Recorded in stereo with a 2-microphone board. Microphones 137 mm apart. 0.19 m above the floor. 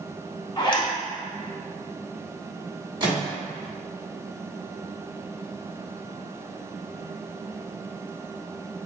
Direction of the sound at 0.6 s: 35° left (ahead or behind).